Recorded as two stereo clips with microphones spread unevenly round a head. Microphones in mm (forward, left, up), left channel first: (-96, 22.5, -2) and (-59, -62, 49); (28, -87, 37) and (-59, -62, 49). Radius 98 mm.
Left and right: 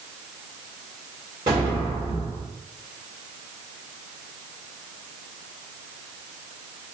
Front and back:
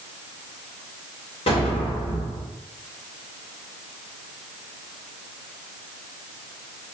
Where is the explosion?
25° right, 1.7 m.